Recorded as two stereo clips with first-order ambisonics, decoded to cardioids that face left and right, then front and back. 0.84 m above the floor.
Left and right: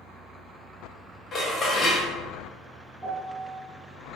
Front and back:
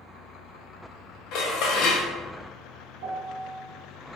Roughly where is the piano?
Behind.